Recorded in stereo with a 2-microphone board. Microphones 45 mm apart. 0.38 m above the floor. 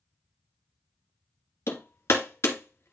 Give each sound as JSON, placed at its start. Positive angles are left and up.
{"t": 1.7, "sound": "hammering", "side_deg": 75, "distance_m": 1.7}